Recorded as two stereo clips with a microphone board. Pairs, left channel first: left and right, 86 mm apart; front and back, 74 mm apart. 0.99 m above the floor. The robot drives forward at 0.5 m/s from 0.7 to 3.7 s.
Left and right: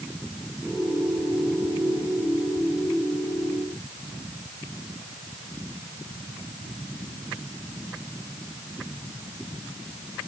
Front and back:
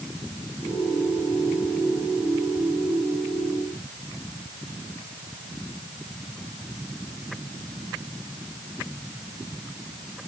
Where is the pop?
No pop in this recording.